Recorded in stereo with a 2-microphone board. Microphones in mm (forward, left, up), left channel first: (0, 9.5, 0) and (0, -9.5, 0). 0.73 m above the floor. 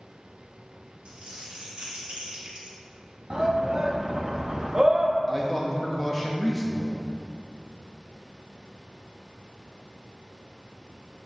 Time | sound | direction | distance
1.1 | crumpling | 70° right (ahead or behind) | 1.9 m
3.3 | a shout | 40° right (ahead or behind) | 0.8 m
5.3 | a man speaking | 10° left (ahead or behind) | 0.7 m